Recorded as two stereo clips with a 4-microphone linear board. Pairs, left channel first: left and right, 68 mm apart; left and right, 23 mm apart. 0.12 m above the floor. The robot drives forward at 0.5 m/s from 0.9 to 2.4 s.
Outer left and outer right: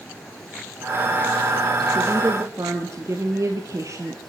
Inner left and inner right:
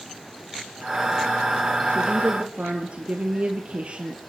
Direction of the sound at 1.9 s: 50° right (ahead or behind).